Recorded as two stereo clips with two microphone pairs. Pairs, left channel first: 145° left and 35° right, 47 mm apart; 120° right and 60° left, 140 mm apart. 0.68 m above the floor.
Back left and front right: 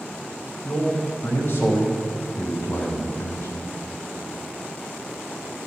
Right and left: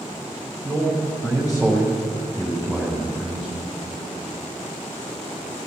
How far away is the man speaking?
About 5 m.